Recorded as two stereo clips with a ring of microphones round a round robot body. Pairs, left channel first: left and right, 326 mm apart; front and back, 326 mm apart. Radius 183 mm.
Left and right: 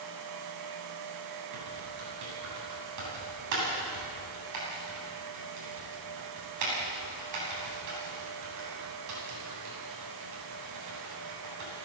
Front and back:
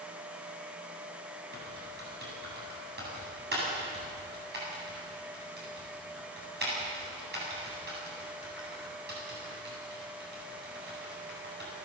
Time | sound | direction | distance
1.5 | typing on a keyboard | 120° right | 9 m